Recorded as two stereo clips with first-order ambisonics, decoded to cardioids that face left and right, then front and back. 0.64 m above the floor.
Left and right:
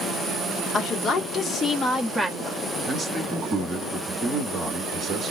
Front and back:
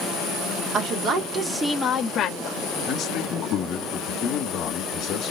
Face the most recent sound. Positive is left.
turn(degrees=-30)